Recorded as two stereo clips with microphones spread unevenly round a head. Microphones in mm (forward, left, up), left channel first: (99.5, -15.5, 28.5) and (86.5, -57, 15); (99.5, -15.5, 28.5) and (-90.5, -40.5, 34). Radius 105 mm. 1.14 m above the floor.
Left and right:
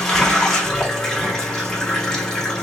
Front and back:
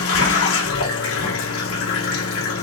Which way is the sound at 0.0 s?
5° right.